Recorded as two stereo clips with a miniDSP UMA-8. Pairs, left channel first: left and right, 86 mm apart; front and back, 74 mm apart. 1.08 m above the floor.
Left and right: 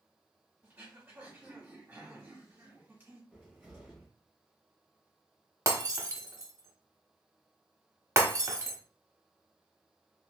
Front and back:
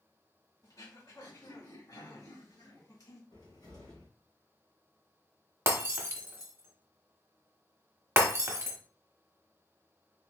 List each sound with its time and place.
0.6 s throat clearing: 20° right, 1.9 m
3.3 s a cupboard door: 5° right, 2 m
5.7 s breaking glass: 135° right, 0.9 m